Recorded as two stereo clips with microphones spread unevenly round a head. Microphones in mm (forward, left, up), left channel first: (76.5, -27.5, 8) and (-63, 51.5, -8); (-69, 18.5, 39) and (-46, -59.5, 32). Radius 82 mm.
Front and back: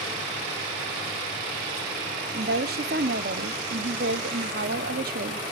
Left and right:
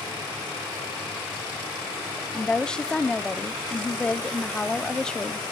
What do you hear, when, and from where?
2.3 s a woman speaking: 170° right, 1.2 m